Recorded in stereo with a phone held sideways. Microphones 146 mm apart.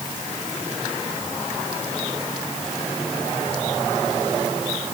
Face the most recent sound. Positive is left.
No sound to turn to.